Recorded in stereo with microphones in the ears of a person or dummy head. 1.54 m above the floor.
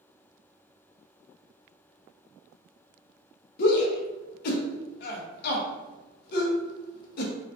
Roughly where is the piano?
I don't hear a piano.